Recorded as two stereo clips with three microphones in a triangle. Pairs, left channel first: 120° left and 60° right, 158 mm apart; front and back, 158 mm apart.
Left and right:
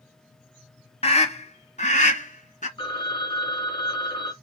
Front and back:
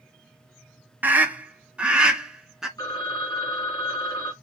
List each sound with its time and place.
1.0 s a scream: 105° left, 1.3 m; by 2.7 s 95° left, 2 m
2.8 s a phone ringing: 65° left, 2.0 m